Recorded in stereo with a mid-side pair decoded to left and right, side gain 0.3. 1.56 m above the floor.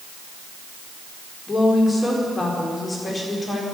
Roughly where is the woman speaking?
Ahead left.